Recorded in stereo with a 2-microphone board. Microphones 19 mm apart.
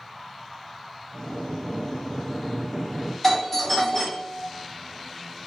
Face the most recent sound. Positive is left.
turn(degrees=15)  # may be behind; listen again after turning